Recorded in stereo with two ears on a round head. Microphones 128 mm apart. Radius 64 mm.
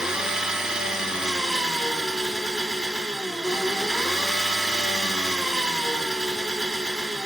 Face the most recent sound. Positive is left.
turn(degrees=-5)  # may be behind; listen again after turning